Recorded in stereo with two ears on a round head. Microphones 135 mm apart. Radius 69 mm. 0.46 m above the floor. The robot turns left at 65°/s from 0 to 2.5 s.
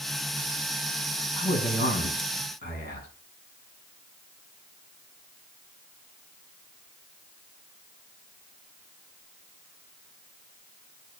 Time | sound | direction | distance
1.4 | a man speaking | 145° left | 5 m